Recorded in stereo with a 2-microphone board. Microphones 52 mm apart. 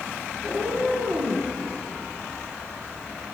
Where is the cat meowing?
55° right (ahead or behind), 2.5 m; by 1.5 s 65° right (ahead or behind), 2.0 m.